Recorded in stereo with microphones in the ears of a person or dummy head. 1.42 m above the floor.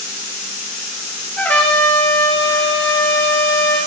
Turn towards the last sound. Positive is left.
turn(degrees=10)  # may be behind; listen again after turning